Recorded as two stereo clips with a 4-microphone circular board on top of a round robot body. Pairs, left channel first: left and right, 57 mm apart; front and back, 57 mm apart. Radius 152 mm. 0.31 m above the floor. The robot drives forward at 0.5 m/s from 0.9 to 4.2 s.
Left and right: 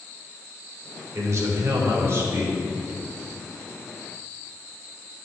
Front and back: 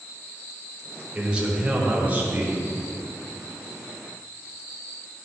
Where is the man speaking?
105° right, 1.8 m; by 2.6 s 130° right, 2 m.